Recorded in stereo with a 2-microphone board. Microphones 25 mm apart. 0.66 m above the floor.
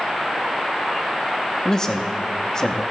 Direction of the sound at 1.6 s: 25° left (ahead or behind).